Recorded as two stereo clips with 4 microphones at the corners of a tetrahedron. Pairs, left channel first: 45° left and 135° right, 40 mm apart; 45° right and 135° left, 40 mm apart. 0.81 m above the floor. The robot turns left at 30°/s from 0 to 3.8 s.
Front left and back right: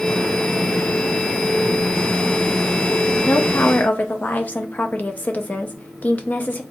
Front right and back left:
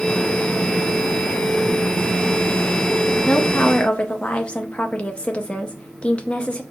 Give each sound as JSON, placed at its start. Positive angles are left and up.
{"t": 3.3, "sound": "a woman speaking", "azimuth_deg": 25, "distance_m": 0.7}